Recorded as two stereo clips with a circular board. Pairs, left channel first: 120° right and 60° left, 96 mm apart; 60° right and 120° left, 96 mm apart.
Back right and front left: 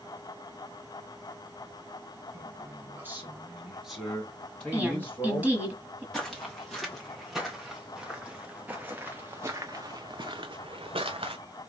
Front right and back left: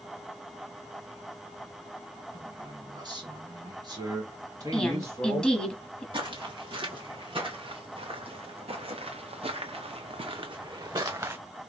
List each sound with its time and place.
2.3 s a man speaking: 100° left, 2 m; by 5.5 s 175° left, 2.5 m
4.7 s a woman speaking: 10° left, 1.3 m
6.1 s footsteps: 155° left, 2.5 m; by 11.4 s 60° left, 0.9 m